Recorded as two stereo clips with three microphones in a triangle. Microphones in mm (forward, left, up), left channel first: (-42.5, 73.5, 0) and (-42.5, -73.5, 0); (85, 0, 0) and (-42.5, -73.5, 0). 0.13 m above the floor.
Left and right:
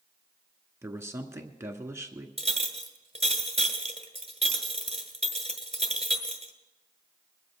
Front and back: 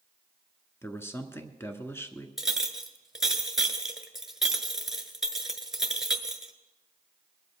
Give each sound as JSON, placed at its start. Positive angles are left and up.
{"t": 0.8, "sound": "a man speaking", "azimuth_deg": -35, "distance_m": 1.2}
{"t": 2.4, "sound": "a clink", "azimuth_deg": -65, "distance_m": 1.3}